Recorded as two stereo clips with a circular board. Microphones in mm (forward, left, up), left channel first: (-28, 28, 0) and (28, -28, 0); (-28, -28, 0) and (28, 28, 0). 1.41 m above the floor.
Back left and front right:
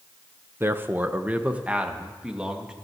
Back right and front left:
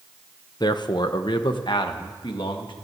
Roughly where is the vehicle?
I don't hear a vehicle.